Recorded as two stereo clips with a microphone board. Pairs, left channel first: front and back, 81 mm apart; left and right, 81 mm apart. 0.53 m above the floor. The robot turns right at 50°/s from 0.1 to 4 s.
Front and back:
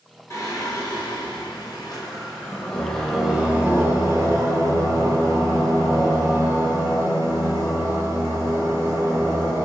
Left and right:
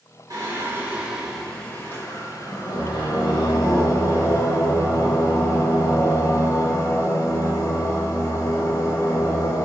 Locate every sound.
0.3 s singing: 55° right, 1.0 m; by 9.7 s 130° left, 1.0 m